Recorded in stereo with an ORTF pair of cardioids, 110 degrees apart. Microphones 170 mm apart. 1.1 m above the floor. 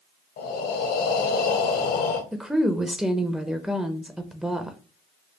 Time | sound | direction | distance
0.4 | breathing | 65° left | 1.1 m
2.3 | a woman speaking | 5° right | 0.6 m